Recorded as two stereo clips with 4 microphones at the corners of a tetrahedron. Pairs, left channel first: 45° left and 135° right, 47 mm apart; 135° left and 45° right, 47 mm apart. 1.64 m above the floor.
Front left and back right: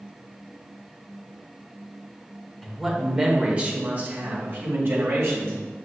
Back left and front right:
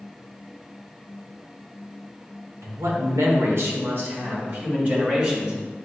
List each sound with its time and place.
2.6 s a man speaking: 40° right, 0.9 m; by 5.6 s 105° right, 1.8 m